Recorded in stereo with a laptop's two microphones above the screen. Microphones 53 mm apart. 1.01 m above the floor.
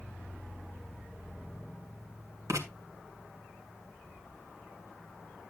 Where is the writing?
80° right, 2.0 m.